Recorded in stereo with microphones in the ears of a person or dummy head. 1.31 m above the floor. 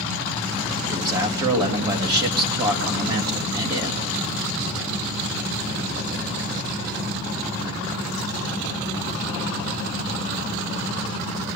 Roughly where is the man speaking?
Centre.